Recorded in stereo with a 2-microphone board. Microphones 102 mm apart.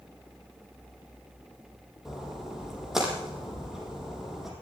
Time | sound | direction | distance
2.0 | a splash | 5° right (ahead or behind) | 5 m